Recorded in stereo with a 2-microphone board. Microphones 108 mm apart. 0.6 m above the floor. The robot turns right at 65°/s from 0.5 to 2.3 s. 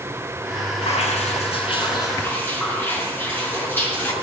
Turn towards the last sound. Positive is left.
turn(degrees=160)